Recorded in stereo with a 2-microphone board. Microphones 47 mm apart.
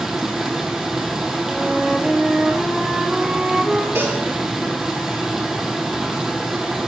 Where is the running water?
10° right (ahead or behind), 1.7 m.